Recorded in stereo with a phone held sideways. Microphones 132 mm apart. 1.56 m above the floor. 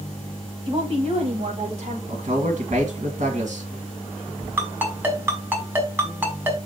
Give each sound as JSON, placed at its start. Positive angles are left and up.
{"t": 0.7, "sound": "a woman speaking", "side_deg": -40, "distance_m": 2.0}
{"t": 2.1, "sound": "a man speaking", "side_deg": -75, "distance_m": 1.8}
{"t": 4.6, "sound": "a ringtone", "side_deg": -15, "distance_m": 3.0}